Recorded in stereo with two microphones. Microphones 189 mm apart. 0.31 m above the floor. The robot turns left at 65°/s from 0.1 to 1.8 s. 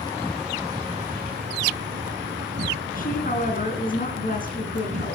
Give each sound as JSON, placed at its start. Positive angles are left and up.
{"t": 0.0, "sound": "an insect", "azimuth_deg": 20, "distance_m": 1.6}
{"t": 3.0, "sound": "a woman speaking", "side_deg": 45, "distance_m": 3.5}